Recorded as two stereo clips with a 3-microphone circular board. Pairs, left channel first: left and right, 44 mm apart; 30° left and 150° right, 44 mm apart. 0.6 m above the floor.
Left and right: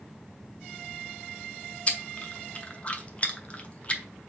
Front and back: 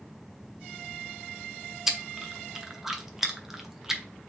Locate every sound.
1.9 s chewing: 135° left, 0.6 m